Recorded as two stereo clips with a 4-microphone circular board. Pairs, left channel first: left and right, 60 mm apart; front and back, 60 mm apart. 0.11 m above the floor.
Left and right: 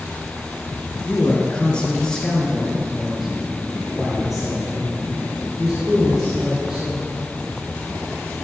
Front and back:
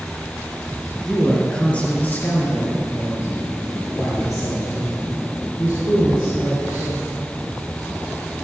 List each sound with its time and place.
1.0 s a man speaking: 85° left, 1.7 m; by 6.9 s 15° right, 5 m